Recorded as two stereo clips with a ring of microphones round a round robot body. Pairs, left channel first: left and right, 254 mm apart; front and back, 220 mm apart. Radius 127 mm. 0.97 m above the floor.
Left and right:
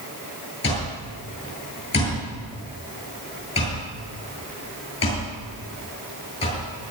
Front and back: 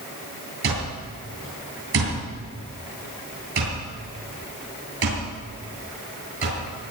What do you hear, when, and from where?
0.6 s an alarm clock: 160° left, 9.5 m